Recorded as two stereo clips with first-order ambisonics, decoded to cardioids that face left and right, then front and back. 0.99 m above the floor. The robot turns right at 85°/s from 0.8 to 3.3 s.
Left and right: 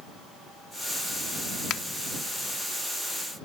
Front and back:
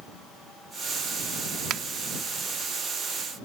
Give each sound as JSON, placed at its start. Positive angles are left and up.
{"t": 1.7, "sound": "a finger snap", "azimuth_deg": 135}